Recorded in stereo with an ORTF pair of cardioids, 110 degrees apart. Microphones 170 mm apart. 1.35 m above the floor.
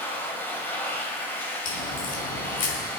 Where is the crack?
55° left, 4.5 m.